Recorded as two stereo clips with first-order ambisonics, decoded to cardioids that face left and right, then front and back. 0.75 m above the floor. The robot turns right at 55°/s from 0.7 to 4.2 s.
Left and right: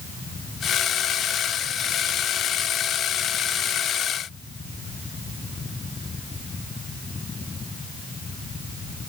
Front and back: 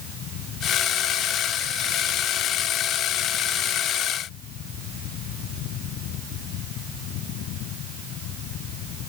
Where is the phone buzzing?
I don't hear a phone buzzing.